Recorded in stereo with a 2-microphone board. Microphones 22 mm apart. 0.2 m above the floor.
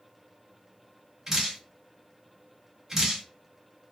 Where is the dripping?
25° right (ahead or behind), 1.4 m.